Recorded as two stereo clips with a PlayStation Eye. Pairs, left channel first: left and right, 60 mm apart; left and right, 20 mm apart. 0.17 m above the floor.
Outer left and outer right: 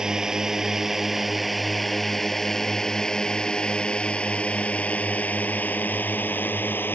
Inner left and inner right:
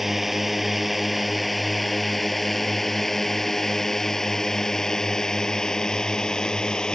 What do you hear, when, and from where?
0.0 s a drone: 10° right (ahead or behind); by 7.0 s 35° left (ahead or behind)